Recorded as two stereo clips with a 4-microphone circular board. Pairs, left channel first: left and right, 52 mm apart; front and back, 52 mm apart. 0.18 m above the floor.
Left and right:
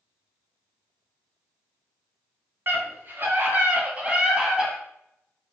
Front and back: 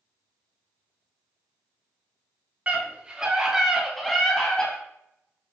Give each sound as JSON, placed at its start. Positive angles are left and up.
{"t": 2.7, "sound": "a scream", "azimuth_deg": -120, "distance_m": 2.0}